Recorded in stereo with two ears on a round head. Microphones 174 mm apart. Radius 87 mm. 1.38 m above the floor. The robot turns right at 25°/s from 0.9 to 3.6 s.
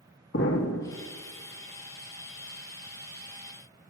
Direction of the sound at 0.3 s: 65° left (ahead or behind).